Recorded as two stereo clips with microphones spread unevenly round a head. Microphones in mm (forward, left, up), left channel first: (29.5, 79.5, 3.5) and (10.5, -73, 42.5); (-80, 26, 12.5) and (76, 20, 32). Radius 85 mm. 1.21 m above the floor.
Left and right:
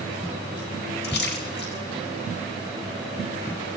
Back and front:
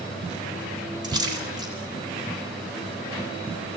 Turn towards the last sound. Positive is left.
turn(degrees=65)